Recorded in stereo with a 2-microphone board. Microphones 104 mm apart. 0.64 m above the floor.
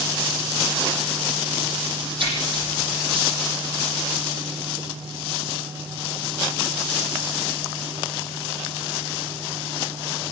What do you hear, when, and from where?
2.2 s a splash: 55° right (ahead or behind), 9.5 m